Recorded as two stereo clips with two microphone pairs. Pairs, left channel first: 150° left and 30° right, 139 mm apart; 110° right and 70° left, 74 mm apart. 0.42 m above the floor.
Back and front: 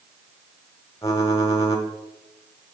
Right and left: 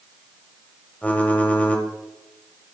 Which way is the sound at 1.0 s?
165° right.